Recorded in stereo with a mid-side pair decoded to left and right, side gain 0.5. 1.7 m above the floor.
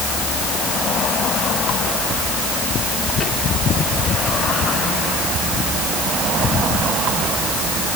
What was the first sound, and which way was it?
Only background noise.